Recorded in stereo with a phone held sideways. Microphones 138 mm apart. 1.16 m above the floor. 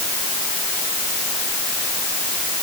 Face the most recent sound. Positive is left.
No sound to turn to.